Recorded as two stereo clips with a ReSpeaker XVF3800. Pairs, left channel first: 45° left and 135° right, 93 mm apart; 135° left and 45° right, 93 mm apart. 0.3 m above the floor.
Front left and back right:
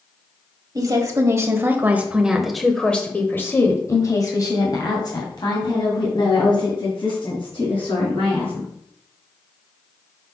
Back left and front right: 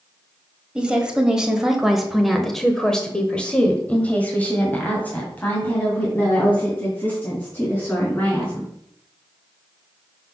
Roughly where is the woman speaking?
Behind right.